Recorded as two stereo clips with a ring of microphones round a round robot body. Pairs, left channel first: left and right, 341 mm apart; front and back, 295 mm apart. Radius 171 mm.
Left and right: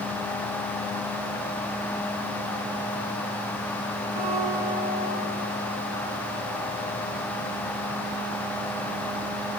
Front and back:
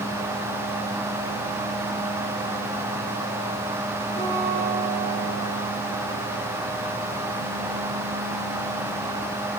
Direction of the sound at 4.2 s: 70° right.